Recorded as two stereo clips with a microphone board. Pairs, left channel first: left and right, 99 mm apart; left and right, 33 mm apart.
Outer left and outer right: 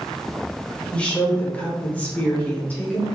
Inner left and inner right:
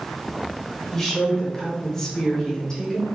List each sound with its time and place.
0.9 s a woman speaking: 10° left (ahead or behind), 1.3 m; by 3.1 s 15° left (ahead or behind), 1.0 m